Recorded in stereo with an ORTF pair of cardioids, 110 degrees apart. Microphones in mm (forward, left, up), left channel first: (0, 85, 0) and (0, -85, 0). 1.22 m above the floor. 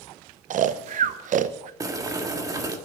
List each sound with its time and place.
0.5 s snoring: 50° right, 0.7 m
1.8 s boiling: 20° right, 1.6 m